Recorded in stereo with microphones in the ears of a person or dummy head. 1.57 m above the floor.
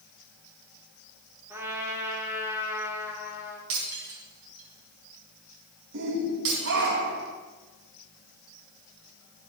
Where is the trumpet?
10° right (ahead or behind), 2.5 m.